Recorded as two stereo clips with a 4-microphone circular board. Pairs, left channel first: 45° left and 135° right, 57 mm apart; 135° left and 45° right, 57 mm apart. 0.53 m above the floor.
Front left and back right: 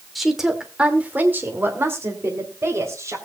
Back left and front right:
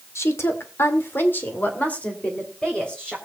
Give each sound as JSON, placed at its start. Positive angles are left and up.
{"t": 0.1, "sound": "a woman speaking", "azimuth_deg": 135, "distance_m": 1.8}